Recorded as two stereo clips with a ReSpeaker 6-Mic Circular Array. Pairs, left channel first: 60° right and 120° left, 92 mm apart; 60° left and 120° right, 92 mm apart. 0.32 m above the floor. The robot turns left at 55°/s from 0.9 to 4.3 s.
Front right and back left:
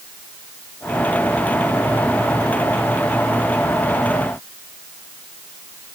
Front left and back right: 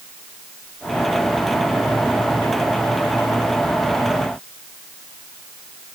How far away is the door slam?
I don't hear a door slam.